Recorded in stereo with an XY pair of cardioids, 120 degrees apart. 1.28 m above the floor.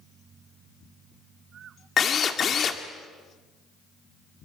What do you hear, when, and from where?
2.0 s a drill: 40° left, 2 m